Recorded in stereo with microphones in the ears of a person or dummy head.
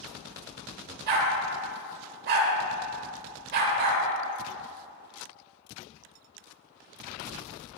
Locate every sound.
1.1 s a dog barking: 55° right (ahead or behind), 2.5 m